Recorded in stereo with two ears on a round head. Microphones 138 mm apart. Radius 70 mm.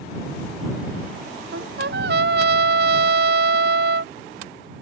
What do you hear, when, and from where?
1.5 s a trumpet: 70° right (ahead or behind)